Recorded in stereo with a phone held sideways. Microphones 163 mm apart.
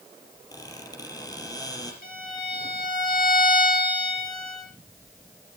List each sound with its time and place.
0.5 s a squeak: 25° left (ahead or behind), 5 m
2.0 s a violin: 70° left (ahead or behind), 7.5 m